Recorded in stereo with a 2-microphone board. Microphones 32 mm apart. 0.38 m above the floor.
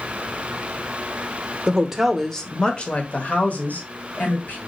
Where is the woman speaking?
20° right (ahead or behind), 0.8 m; by 4.6 s 65° left (ahead or behind), 1.9 m.